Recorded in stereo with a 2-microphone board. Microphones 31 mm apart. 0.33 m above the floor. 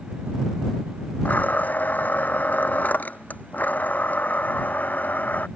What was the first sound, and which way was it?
A blender, 70° left (ahead or behind).